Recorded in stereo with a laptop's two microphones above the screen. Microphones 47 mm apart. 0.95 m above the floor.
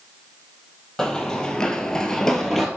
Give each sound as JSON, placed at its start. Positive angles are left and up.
{"t": 1.0, "sound": "running footsteps", "side_deg": 10, "distance_m": 1.5}